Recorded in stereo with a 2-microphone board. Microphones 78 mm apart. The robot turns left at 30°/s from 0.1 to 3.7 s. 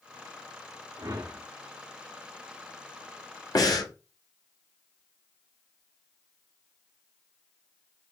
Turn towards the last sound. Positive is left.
turn(degrees=55)  # may be behind; listen again after turning